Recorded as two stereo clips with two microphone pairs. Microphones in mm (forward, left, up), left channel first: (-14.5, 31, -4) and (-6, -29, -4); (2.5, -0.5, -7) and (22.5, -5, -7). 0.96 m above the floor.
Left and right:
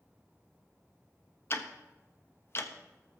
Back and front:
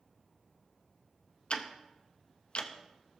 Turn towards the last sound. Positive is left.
turn(degrees=140)